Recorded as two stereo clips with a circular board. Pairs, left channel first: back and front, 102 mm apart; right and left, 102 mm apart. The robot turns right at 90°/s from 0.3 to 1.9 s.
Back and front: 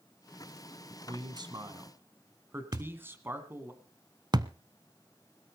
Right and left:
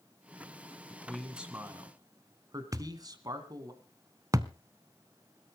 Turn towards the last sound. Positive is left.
turn(degrees=40)